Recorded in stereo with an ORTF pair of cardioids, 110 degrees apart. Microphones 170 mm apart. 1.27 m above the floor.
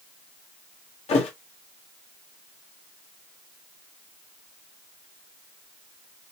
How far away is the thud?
About 2.0 m.